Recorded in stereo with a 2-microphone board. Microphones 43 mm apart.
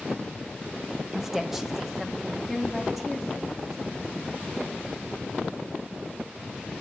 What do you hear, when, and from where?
1.1 s a woman speaking: 10° right (ahead or behind), 0.8 m; by 4.1 s centre (ahead or behind), 3 m